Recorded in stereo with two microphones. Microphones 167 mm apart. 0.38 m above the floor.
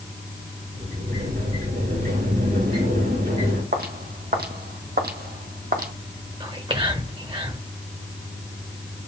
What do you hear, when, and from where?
0.7 s a sliding door: 70° right (ahead or behind), 3.5 m
3.7 s footsteps: 65° right (ahead or behind), 1.4 m; by 5.9 s 60° right (ahead or behind), 1.1 m
6.4 s whispering: 30° right (ahead or behind), 1.5 m